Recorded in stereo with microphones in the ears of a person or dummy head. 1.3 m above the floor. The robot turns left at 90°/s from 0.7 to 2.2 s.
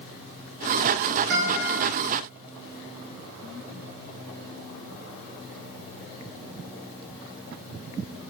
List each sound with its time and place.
1.3 s a guitar: 50° right, 1.4 m; by 1.8 s 95° right, 1.4 m